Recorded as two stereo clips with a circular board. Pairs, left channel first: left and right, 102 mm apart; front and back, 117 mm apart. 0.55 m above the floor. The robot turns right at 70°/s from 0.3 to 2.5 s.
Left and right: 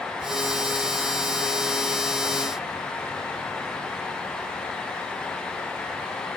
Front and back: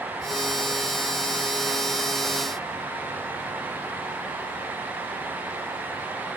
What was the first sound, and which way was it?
Only background noise.